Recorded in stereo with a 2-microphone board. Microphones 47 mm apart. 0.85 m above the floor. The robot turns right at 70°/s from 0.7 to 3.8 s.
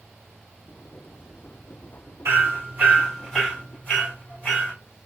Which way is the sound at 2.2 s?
70° right (ahead or behind).